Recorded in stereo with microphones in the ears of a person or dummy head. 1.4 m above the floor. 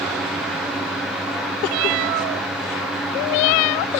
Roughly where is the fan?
Centre.